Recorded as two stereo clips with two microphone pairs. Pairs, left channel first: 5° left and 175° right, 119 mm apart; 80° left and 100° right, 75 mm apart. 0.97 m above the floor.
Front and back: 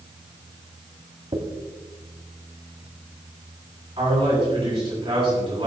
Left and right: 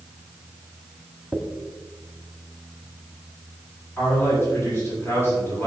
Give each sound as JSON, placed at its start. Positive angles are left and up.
{"t": 1.3, "sound": "a dropped coin", "azimuth_deg": 150, "distance_m": 1.3}
{"t": 4.0, "sound": "a man speaking", "azimuth_deg": 135, "distance_m": 6.0}